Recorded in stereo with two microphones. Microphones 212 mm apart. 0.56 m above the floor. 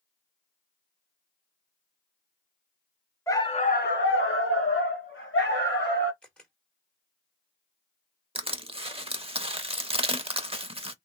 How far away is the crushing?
About 0.6 m.